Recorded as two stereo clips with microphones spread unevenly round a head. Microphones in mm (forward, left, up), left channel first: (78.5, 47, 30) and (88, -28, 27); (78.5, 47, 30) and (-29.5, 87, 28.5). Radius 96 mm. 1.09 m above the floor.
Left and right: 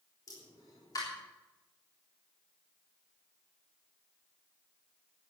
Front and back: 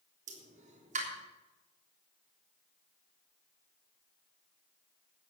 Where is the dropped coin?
I don't hear a dropped coin.